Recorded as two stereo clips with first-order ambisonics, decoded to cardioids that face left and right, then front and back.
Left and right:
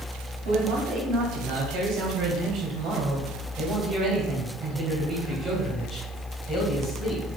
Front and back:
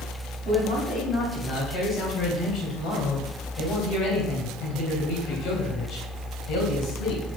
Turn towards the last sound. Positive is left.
turn(degrees=-5)